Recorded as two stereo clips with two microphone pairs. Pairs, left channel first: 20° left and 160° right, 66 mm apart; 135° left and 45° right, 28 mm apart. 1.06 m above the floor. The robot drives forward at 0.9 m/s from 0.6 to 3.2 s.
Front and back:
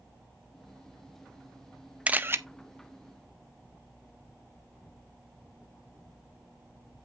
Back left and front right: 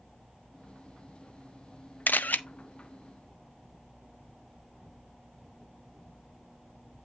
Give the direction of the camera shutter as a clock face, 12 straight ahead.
8 o'clock.